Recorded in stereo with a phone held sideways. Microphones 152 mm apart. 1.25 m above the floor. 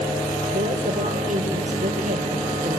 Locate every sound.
0.5 s a woman speaking: 60° right (ahead or behind), 4.5 m